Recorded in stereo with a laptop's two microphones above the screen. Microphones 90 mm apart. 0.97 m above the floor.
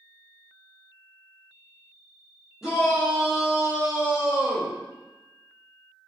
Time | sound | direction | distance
2.6 | a shout | 5° right (ahead or behind) | 1.6 m